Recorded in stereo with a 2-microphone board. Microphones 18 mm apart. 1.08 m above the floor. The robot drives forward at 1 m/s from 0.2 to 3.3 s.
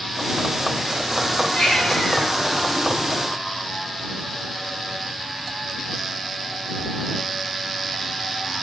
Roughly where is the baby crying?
Left.